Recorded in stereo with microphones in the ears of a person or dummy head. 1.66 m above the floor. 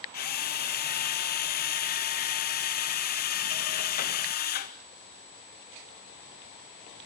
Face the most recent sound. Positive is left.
turn(degrees=50)  # may be behind; listen again after turning